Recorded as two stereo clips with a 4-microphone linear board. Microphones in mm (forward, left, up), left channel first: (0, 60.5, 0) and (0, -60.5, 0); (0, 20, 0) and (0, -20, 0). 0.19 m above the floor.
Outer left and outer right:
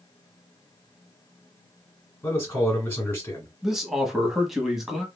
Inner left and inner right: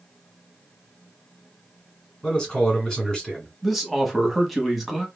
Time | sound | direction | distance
2.2 | a man speaking | 15° left (ahead or behind) | 2 m
3.6 | a man speaking | 5° right (ahead or behind) | 1.0 m